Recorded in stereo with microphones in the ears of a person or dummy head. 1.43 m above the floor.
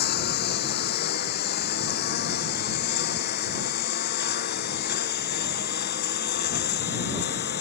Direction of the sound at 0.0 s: 55° left (ahead or behind).